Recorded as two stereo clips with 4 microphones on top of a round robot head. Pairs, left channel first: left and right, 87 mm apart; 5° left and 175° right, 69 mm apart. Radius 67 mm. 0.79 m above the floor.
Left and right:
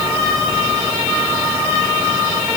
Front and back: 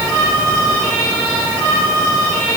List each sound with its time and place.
Only background noise.